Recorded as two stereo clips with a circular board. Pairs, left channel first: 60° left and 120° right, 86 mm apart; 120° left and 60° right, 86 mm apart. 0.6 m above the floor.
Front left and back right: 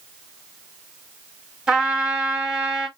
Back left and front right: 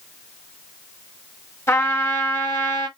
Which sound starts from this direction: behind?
A trumpet, at 1.7 s.